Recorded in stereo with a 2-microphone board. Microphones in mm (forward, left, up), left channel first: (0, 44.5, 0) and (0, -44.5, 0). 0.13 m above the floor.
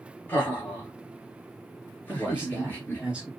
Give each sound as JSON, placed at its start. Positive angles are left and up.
{"t": 0.3, "sound": "laughter", "side_deg": 25, "distance_m": 2.5}
{"t": 2.1, "sound": "a man speaking", "side_deg": -15, "distance_m": 1.8}